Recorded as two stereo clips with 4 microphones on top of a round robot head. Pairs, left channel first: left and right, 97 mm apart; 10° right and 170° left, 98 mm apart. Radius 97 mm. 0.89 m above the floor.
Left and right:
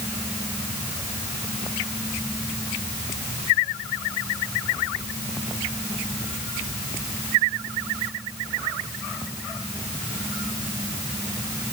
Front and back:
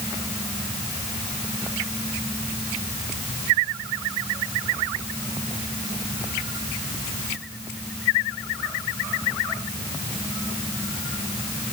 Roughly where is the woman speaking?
No woman speaking in this recording.